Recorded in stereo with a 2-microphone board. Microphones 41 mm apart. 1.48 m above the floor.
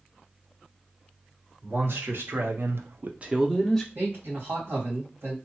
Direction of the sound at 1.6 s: 60° right (ahead or behind).